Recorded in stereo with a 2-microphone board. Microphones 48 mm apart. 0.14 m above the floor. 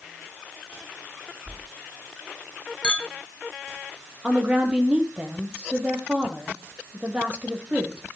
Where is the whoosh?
25° left (ahead or behind), 1.3 m.